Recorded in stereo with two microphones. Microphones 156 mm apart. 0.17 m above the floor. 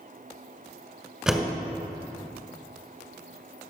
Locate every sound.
1.3 s a door slam: 5° right (ahead or behind), 1.2 m